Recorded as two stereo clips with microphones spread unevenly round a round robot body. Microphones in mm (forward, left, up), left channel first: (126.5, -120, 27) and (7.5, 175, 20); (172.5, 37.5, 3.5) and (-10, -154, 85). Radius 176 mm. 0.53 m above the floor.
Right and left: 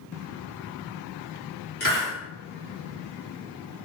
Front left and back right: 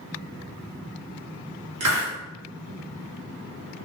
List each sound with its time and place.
1.8 s a hiss: 120° right, 1.3 m